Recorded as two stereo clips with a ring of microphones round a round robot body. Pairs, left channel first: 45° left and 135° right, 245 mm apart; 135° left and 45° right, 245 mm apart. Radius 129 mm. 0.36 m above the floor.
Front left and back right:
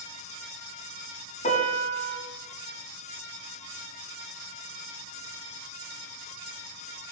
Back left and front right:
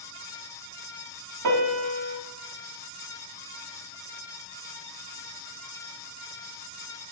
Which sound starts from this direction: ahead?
A piano, at 1.4 s.